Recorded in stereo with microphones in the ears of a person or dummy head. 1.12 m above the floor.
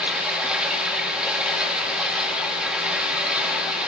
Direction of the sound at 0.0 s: 5° right (ahead or behind).